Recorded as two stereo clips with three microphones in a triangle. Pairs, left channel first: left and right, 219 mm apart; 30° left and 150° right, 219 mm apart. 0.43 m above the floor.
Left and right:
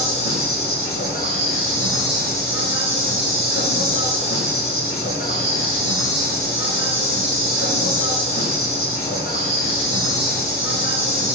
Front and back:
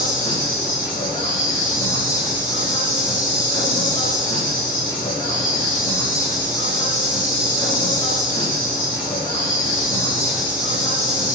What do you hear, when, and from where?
0.0 s an insect: 95° left, 4 m